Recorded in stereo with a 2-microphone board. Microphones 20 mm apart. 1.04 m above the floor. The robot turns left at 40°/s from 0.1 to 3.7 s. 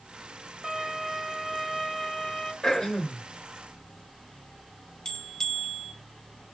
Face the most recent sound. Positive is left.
turn(degrees=45)  # may be behind; listen again after turning